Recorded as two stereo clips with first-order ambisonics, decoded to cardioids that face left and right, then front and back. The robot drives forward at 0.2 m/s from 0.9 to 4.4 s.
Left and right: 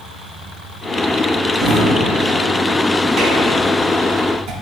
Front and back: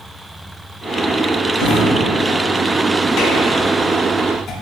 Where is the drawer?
25° right, 0.9 m; by 4.5 s 55° right, 0.5 m.